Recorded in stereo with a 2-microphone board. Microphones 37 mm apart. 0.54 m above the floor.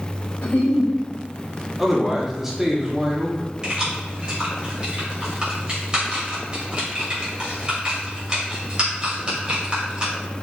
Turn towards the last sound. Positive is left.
turn(degrees=-20)  # may be behind; listen again after turning